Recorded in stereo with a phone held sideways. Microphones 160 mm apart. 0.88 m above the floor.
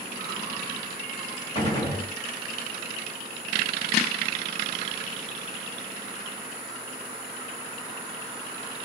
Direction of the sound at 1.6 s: 35° left (ahead or behind).